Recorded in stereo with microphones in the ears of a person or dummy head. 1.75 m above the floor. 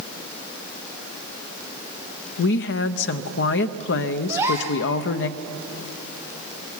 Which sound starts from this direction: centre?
A gasp, at 4.3 s.